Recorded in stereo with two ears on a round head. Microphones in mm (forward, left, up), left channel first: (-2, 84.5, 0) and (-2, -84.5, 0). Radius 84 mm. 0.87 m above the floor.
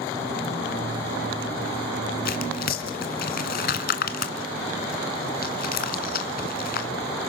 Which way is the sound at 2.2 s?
50° left (ahead or behind).